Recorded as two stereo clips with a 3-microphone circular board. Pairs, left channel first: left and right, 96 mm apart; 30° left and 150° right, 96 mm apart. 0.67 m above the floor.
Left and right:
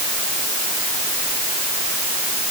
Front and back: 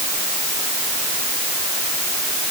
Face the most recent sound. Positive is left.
No sound to turn to.